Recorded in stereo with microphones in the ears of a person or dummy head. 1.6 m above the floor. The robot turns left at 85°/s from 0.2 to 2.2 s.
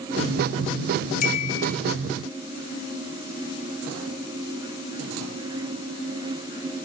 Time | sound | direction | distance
1.2 | a chime | 55° left | 3 m